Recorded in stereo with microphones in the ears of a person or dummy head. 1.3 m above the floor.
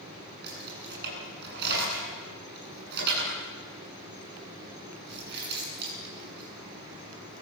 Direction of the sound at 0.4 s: 60° right (ahead or behind).